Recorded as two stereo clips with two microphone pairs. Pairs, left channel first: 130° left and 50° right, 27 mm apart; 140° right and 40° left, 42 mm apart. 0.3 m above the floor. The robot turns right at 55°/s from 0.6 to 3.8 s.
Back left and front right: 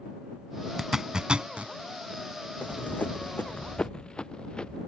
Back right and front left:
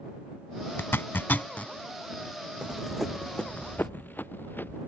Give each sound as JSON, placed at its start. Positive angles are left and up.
{"t": 0.8, "sound": "a zipper", "azimuth_deg": -130}
{"t": 2.6, "sound": "running footsteps", "azimuth_deg": 110}